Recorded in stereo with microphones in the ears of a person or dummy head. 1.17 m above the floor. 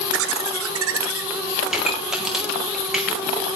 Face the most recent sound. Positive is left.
turn(degrees=-5)  # may be behind; listen again after turning